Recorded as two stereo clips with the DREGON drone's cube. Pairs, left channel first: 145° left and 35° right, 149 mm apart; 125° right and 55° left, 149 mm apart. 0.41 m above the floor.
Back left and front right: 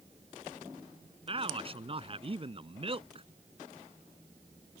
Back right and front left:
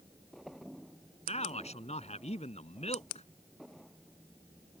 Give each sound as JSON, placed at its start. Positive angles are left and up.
{"t": 1.3, "sound": "a man speaking", "azimuth_deg": -85}